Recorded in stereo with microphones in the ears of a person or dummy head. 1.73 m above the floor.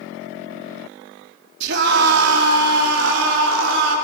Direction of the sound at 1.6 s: 65° right (ahead or behind).